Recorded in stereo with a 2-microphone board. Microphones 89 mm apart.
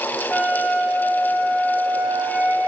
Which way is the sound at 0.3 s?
15° right (ahead or behind).